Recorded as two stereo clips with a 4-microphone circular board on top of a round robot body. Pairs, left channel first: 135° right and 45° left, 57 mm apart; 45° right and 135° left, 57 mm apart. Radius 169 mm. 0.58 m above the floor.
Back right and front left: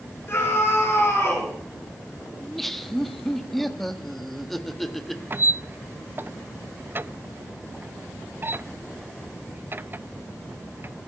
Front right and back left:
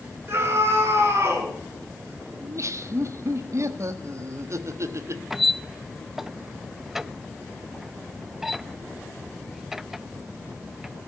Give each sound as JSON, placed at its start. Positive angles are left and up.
{"t": 0.3, "sound": "a scream", "azimuth_deg": 175, "distance_m": 9.0}
{"t": 2.4, "sound": "laughter", "azimuth_deg": 140, "distance_m": 1.7}
{"t": 5.3, "sound": "a squeak", "azimuth_deg": 55, "distance_m": 0.6}